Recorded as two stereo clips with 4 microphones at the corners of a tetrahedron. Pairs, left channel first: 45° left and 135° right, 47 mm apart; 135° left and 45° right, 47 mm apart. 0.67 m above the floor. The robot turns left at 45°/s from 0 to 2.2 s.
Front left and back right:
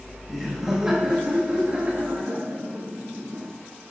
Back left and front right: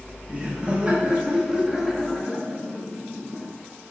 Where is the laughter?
50° right, 1.2 m; by 3.5 s 135° right, 1.2 m.